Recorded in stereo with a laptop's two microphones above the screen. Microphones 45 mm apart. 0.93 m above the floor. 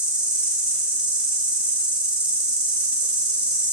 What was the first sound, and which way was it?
An insect, 20° right (ahead or behind).